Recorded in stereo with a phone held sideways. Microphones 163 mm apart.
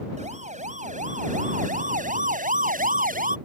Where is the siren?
45° right (ahead or behind); by 3.4 s 55° right (ahead or behind).